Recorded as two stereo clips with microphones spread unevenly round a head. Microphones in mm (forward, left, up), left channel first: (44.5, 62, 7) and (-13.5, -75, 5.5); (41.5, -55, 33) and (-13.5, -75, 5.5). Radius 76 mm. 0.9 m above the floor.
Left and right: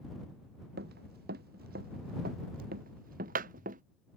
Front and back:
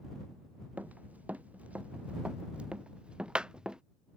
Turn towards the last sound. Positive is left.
turn(degrees=-80)